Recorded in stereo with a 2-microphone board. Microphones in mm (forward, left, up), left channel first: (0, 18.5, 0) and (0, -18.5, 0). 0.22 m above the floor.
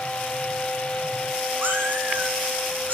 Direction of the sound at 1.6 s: 65° right (ahead or behind).